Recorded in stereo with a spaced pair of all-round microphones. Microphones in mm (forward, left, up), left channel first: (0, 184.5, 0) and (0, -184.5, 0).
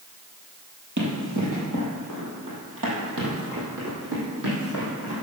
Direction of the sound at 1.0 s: 50° right (ahead or behind).